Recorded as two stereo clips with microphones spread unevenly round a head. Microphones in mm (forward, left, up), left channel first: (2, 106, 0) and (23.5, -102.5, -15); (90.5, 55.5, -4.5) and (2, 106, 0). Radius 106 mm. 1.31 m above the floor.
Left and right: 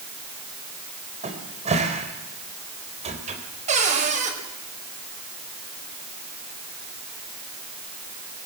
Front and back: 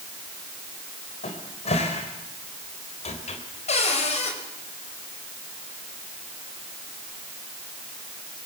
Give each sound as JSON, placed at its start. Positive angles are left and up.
{"t": 1.2, "sound": "a cupboard door", "azimuth_deg": -25, "distance_m": 3.5}
{"t": 3.7, "sound": "a cupboard door", "azimuth_deg": -25, "distance_m": 4.5}